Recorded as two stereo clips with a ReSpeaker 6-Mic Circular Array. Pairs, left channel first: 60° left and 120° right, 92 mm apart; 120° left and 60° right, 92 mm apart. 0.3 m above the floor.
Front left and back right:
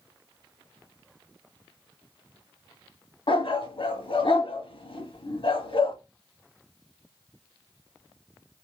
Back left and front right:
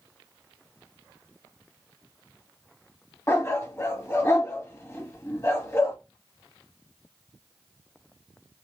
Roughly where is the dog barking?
Ahead left.